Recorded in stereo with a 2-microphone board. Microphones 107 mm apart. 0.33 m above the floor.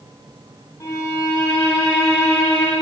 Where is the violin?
25° left (ahead or behind), 2.5 m.